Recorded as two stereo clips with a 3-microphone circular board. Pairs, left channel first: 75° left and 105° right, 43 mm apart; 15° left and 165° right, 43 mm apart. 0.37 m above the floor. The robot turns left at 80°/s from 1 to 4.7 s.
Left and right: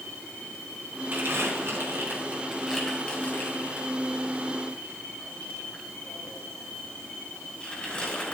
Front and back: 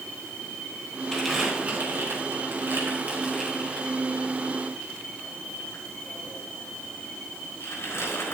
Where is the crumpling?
60° right, 4 m; by 8.3 s 10° left, 4 m.